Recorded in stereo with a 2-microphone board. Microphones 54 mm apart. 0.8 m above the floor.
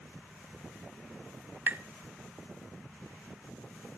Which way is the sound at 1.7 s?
35° right (ahead or behind).